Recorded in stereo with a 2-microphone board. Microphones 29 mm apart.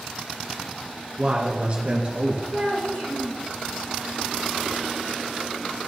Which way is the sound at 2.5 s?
55° left (ahead or behind).